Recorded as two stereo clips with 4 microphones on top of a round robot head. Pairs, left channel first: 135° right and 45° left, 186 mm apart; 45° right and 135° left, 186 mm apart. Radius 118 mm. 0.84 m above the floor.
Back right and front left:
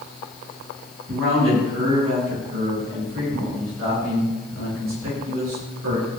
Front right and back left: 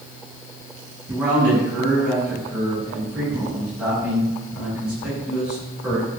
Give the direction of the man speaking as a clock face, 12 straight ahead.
10 o'clock.